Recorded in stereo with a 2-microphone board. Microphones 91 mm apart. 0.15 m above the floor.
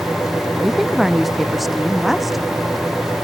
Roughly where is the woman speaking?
Centre.